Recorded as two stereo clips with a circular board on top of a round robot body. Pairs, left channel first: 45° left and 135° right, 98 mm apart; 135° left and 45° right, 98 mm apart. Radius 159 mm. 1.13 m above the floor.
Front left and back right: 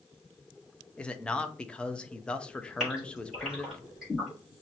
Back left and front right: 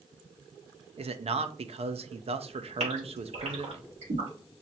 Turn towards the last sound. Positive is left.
turn(degrees=-50)